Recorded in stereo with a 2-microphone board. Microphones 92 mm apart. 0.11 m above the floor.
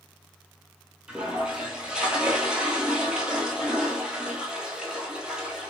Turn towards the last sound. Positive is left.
turn(degrees=-10)  # may be behind; listen again after turning